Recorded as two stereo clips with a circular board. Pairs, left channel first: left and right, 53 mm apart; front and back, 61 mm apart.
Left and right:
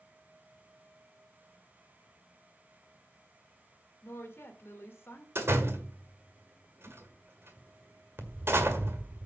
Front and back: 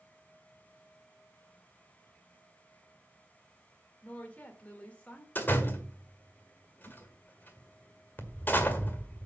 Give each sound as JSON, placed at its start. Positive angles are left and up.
{"t": 4.0, "sound": "a woman speaking", "azimuth_deg": 65, "distance_m": 1.8}
{"t": 5.3, "sound": "a door slam", "azimuth_deg": -55, "distance_m": 1.6}